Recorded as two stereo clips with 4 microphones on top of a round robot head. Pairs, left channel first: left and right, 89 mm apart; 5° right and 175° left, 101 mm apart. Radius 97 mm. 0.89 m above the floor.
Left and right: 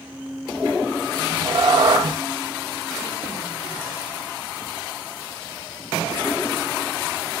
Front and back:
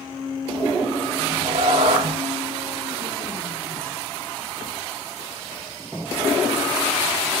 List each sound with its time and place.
1.1 s a cat meowing: 130° right, 1.0 m